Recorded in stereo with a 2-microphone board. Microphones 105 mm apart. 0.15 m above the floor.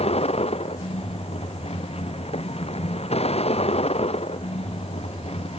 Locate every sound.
0.0 s a vehicle: 75° left (ahead or behind)